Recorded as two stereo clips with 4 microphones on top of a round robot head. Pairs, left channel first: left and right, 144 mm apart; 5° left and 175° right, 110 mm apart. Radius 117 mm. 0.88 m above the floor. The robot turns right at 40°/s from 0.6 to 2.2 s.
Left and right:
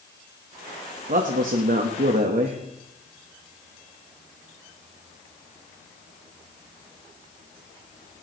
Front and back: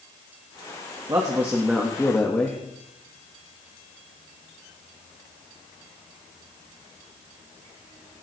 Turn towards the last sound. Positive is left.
turn(degrees=-70)